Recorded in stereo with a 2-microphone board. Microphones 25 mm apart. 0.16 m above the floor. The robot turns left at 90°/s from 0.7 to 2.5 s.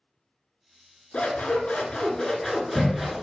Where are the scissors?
120° left, 0.6 m; by 3.2 s straight ahead, 0.6 m.